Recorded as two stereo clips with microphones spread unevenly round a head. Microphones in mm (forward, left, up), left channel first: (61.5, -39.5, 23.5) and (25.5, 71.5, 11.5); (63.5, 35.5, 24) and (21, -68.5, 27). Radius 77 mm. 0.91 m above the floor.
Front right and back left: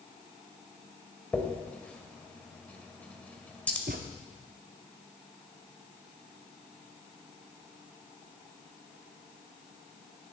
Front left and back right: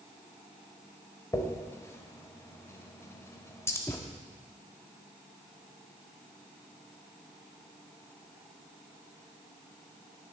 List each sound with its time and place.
1.3 s a dropped coin: 5° left, 1.5 m
3.9 s a thud: 140° left, 0.7 m